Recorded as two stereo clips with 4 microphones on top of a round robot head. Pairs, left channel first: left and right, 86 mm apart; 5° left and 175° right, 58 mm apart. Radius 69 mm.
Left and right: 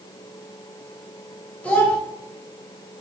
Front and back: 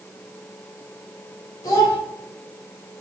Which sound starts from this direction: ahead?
A child speaking, at 1.6 s.